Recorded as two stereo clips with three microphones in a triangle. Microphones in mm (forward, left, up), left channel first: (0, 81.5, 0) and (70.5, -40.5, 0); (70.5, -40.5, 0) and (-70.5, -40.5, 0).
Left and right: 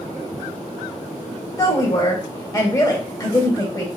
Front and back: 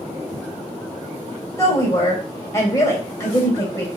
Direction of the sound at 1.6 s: 60° left.